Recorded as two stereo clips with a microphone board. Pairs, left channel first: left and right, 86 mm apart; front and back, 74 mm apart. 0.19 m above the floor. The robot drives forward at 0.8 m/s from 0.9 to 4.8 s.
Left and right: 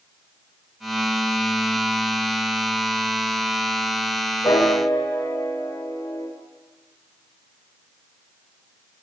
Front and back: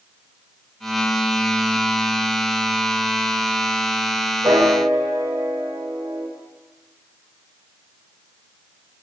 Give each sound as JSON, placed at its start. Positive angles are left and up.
{"t": 4.4, "sound": "a piano", "azimuth_deg": 140, "distance_m": 7.5}